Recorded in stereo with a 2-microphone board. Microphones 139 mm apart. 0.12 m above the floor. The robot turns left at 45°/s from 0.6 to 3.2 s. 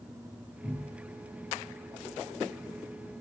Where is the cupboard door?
Centre (ahead or behind), 1.6 m; by 1.1 s 15° left (ahead or behind), 1.6 m.